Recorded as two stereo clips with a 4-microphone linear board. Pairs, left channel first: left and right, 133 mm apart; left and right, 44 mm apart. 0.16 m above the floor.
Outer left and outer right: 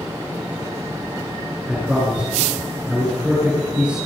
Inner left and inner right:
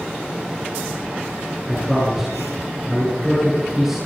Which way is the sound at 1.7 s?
10° right (ahead or behind).